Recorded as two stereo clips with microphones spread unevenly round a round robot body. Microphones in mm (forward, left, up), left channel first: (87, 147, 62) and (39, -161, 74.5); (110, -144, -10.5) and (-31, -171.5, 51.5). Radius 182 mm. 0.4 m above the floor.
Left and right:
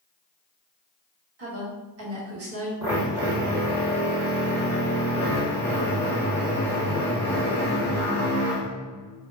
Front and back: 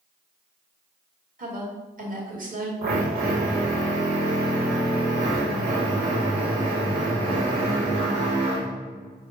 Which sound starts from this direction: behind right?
A woman speaking, at 1.4 s.